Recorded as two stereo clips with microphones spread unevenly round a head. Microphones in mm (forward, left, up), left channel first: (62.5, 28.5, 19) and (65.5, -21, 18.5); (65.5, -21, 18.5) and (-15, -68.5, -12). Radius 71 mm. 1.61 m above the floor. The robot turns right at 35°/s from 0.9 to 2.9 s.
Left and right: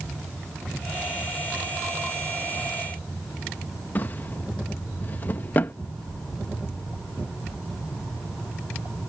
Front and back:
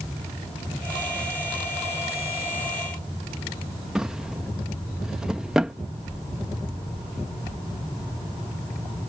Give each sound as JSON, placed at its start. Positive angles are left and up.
{"t": 4.0, "sound": "a drawer", "azimuth_deg": 100}